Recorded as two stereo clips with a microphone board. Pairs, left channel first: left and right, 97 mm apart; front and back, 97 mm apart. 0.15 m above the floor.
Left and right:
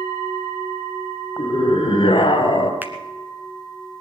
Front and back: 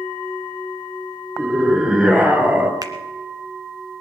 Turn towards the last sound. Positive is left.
turn(degrees=-150)